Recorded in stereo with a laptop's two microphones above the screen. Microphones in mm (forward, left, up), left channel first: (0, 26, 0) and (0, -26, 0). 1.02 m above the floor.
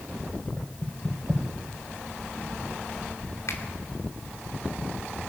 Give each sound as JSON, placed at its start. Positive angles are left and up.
{"t": 0.6, "sound": "knocking", "side_deg": 5, "distance_m": 4.5}
{"t": 3.5, "sound": "a finger snap", "side_deg": 75, "distance_m": 2.5}